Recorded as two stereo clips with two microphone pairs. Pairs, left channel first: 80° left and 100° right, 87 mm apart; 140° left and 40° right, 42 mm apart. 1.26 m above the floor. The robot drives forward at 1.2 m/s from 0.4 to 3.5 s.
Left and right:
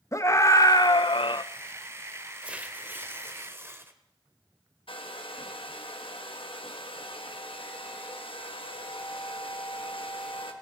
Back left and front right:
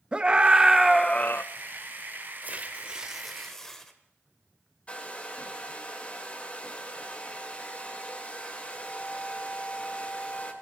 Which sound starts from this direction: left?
A hair dryer, at 4.9 s.